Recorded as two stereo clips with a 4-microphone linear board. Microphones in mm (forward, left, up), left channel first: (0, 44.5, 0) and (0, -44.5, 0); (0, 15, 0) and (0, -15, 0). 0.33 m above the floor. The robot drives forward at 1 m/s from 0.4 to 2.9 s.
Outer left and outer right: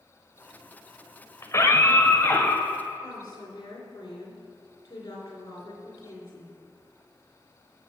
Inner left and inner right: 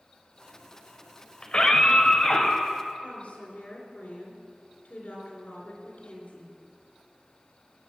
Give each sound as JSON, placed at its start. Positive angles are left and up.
{"t": 1.4, "sound": "a scream", "side_deg": 35, "distance_m": 1.3}
{"t": 3.0, "sound": "a woman speaking", "side_deg": 45, "distance_m": 4.0}